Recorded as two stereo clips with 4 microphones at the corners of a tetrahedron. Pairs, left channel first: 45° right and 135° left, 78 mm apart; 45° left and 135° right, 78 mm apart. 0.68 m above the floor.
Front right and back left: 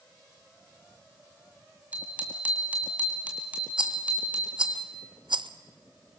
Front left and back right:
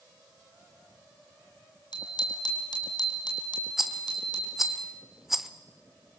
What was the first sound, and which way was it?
A bicycle bell, 65° left.